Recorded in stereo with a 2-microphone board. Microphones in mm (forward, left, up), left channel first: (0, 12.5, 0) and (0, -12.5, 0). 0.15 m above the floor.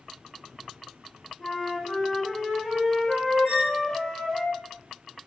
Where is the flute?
30° left (ahead or behind), 1.3 m.